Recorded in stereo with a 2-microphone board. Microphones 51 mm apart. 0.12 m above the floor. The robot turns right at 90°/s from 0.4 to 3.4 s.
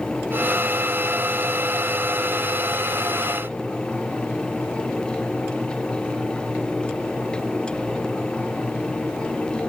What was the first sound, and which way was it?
Only background noise.